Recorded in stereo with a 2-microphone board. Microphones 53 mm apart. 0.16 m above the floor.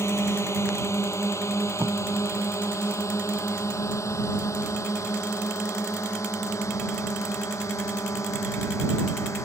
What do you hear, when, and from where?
0.0 s a drone: 65° left (ahead or behind); by 9.4 s 75° left (ahead or behind)
1.8 s tape being pulled: 70° right (ahead or behind)